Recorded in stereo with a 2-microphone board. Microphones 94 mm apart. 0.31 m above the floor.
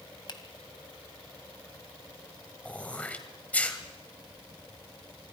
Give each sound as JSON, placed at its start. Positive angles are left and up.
{"t": 0.3, "sound": "a finger snap", "side_deg": 50, "distance_m": 1.9}
{"t": 2.6, "sound": "throat clearing", "side_deg": 15, "distance_m": 1.9}